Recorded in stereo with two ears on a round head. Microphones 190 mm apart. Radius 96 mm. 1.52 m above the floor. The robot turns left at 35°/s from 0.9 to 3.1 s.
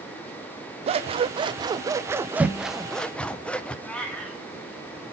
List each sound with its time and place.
0.9 s scissors: 115° right, 0.5 m; by 3.8 s 170° left, 0.5 m
3.9 s a cat meowing: 5° left (ahead or behind), 2 m